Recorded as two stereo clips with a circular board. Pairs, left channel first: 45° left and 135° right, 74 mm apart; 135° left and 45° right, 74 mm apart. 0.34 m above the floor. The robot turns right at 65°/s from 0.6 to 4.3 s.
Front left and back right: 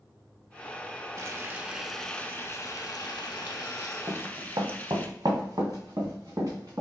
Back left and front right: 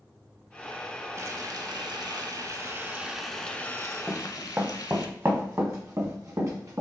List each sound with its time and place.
1.2 s frying: 90° right, 0.5 m; by 5.1 s 110° left, 0.5 m
4.1 s running footsteps: 140° right, 1.1 m; by 6.8 s 90° right, 2 m